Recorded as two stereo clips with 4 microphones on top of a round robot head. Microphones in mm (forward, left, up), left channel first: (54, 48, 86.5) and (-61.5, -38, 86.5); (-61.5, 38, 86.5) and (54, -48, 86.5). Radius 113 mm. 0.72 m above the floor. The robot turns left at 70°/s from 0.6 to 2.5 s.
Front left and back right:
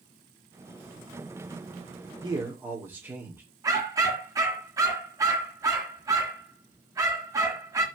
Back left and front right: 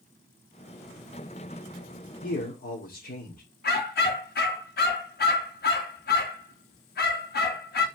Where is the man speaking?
165° left, 2.5 m; by 3.4 s 145° left, 2.5 m.